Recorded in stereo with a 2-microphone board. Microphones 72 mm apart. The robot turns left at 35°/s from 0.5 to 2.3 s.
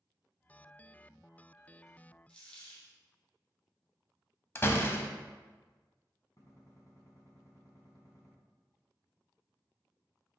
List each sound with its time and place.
2.3 s a dropped coin: 15° left (ahead or behind), 2 m
4.5 s a door slam: 30° left (ahead or behind), 0.7 m
6.4 s a gunshot: 50° left (ahead or behind), 1.9 m